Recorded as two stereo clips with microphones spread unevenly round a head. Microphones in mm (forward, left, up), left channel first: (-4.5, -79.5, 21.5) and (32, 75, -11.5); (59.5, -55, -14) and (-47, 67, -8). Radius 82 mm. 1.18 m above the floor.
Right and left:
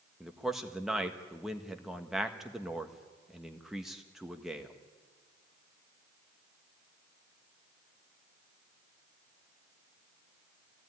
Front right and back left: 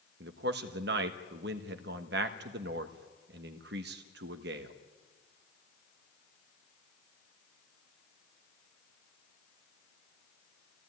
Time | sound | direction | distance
0.2 | a man speaking | 160° left | 1.4 m